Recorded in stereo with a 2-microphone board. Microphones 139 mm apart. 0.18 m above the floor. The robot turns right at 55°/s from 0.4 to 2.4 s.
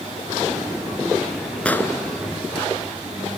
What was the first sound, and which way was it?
An explosion, 10° left (ahead or behind).